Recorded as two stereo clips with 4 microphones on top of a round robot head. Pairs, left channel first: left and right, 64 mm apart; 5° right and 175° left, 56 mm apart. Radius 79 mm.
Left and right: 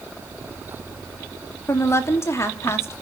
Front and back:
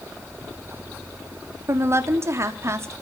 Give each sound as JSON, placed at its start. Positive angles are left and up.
{"t": 1.7, "sound": "a woman speaking", "azimuth_deg": 135, "distance_m": 3.0}